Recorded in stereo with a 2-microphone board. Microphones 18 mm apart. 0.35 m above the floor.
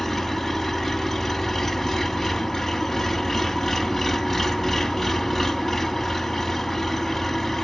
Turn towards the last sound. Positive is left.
turn(degrees=5)  # may be behind; listen again after turning